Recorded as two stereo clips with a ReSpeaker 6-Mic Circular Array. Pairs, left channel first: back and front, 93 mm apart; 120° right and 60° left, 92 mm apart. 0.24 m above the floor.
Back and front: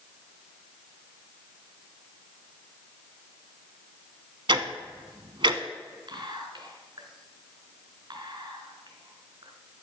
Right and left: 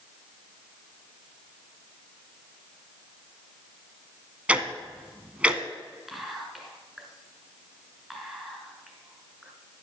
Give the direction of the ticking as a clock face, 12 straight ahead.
1 o'clock.